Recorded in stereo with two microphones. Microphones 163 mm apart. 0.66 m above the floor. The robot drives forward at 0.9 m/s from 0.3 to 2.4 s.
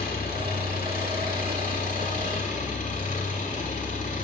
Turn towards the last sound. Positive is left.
turn(degrees=55)  # may be behind; listen again after turning